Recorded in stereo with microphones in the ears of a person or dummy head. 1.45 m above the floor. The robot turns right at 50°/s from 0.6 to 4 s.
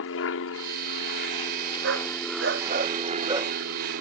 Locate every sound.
0.0 s an aircraft: 90° left; by 4.0 s 100° right
1.8 s a dog barking: 70° right (ahead or behind); by 3.5 s 15° right (ahead or behind)